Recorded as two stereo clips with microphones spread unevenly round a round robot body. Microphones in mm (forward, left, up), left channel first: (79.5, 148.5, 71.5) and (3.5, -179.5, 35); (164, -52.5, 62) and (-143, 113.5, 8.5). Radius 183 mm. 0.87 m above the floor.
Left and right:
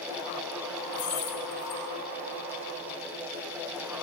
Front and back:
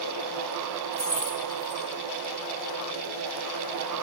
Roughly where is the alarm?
No alarm in this recording.